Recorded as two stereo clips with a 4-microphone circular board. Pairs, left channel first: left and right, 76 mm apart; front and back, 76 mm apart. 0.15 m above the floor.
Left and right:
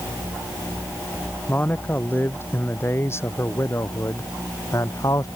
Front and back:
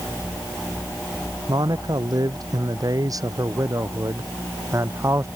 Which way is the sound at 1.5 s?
155° left.